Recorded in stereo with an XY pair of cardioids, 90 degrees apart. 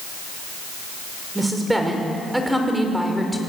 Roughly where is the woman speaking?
Ahead.